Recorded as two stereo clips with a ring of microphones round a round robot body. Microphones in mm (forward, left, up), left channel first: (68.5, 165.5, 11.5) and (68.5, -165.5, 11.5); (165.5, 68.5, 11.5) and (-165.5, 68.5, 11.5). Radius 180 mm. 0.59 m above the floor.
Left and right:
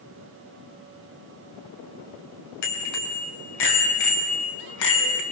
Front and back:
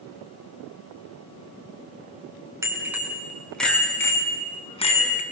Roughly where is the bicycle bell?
Left.